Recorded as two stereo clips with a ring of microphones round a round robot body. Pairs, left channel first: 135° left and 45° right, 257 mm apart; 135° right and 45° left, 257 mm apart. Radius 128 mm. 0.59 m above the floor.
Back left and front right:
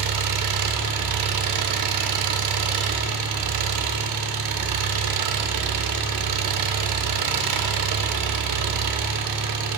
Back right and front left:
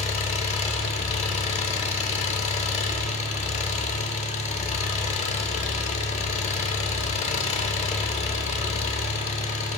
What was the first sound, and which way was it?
An engine running, 70° right.